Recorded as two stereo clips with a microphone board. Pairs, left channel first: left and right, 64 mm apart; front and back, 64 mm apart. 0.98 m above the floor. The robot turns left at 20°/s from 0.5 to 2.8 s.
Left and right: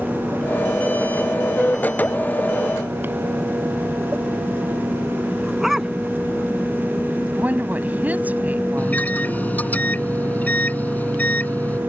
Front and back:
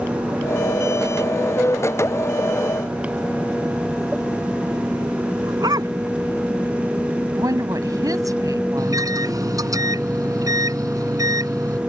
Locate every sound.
5.4 s a dog barking: 175° right
7.3 s a woman speaking: 155° right
8.8 s a microwave: 155° left